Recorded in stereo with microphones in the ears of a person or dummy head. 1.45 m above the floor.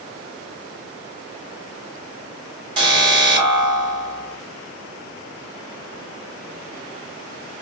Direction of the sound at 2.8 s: 25° right (ahead or behind).